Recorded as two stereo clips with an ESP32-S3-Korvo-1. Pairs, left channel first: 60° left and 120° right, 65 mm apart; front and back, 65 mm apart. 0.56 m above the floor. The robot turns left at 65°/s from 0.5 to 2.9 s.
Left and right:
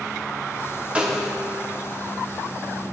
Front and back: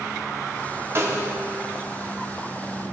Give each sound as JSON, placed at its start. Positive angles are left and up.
{"t": 0.9, "sound": "a snare drum", "azimuth_deg": 175, "distance_m": 0.7}